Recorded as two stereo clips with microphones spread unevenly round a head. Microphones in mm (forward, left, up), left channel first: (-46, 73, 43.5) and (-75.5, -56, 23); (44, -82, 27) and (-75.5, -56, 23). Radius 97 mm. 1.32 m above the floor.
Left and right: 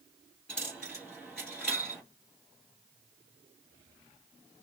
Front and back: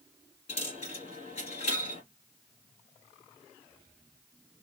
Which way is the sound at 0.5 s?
Straight ahead.